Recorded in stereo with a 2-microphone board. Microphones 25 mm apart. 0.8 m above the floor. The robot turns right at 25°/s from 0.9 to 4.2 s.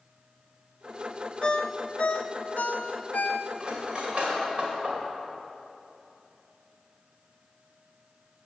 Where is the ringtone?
35° left (ahead or behind), 0.5 m; by 3.9 s 85° left, 0.5 m.